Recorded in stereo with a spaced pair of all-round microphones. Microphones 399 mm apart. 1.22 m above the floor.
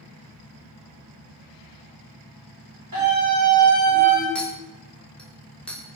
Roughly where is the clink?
Centre.